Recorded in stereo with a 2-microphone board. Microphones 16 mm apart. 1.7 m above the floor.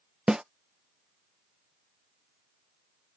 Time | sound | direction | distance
0.3 | a snare drum | 65° right (ahead or behind) | ?